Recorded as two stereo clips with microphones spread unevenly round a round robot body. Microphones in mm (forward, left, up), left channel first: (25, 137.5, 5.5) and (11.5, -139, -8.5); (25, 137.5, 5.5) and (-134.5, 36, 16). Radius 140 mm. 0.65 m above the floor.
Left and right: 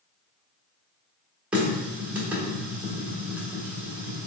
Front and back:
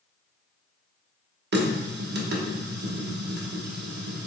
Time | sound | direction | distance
1.5 | a running tap | straight behind | 0.8 m